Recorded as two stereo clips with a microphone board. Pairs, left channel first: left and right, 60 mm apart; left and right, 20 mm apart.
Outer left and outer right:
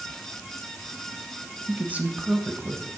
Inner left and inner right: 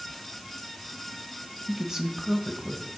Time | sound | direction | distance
1.7 | a man speaking | 25° right (ahead or behind) | 1.0 m